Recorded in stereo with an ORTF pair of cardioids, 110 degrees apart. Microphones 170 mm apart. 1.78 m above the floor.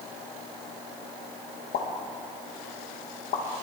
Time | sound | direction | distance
1.7 | a pop | 70° left | 2.5 m